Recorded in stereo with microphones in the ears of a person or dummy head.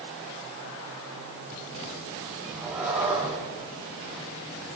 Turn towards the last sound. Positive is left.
turn(degrees=-5)  # may be behind; listen again after turning